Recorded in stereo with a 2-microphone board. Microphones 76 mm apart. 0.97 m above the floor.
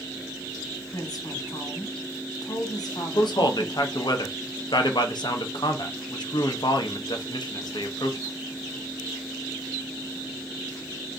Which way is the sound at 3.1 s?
65° left (ahead or behind).